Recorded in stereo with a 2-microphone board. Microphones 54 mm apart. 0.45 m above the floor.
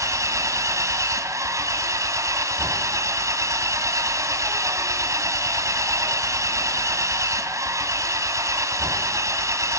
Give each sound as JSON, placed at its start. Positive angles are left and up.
{"t": 0.0, "sound": "an engine running", "side_deg": -75, "distance_m": 1.9}